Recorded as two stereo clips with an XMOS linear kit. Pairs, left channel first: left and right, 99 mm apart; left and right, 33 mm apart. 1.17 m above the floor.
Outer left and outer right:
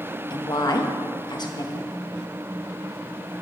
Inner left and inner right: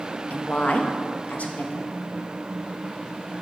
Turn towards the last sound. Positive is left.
turn(degrees=50)  # may be behind; listen again after turning